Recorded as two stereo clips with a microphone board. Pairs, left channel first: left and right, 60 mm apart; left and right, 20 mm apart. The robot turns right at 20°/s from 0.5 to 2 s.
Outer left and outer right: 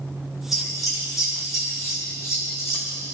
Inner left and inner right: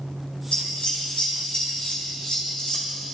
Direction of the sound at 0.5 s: 80° left.